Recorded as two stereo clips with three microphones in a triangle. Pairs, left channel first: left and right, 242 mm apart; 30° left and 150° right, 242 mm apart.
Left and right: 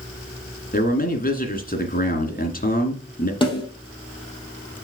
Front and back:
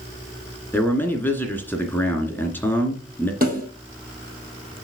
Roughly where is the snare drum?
Behind.